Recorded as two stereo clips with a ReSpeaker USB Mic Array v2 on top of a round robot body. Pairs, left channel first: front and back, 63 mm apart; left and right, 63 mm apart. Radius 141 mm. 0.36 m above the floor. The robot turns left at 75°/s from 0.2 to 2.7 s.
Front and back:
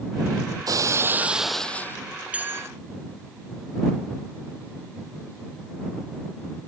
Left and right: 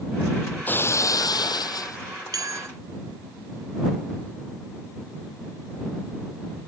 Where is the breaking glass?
155° left; by 2.0 s 55° left.